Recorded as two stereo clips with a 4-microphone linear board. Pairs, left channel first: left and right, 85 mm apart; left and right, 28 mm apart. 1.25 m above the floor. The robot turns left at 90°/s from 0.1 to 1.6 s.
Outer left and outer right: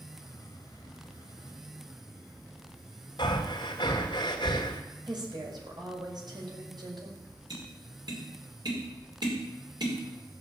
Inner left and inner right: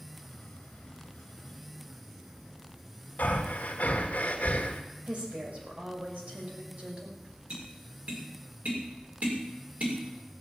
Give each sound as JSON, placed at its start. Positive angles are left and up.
{"t": 3.2, "sound": "breathing", "side_deg": 60, "distance_m": 2.5}
{"t": 5.1, "sound": "a woman speaking", "side_deg": -55, "distance_m": 6.0}
{"t": 7.5, "sound": "tapping", "side_deg": -60, "distance_m": 5.0}